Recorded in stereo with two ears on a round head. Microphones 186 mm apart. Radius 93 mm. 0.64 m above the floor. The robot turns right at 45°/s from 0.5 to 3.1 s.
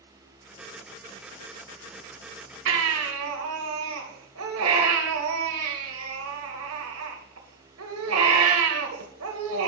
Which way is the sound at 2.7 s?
75° right (ahead or behind).